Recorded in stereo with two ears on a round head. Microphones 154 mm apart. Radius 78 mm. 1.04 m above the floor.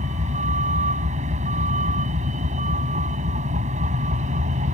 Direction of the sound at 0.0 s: 45° right (ahead or behind).